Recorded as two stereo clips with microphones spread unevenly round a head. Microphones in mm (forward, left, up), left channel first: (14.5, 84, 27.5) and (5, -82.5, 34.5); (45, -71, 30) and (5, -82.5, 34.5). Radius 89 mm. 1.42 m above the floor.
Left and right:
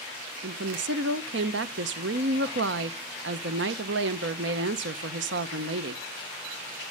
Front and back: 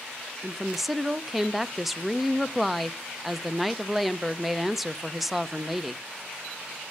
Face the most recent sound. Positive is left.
turn(degrees=-80)